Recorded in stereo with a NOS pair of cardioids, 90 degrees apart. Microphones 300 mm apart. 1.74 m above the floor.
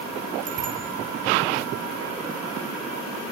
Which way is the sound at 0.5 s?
55° right.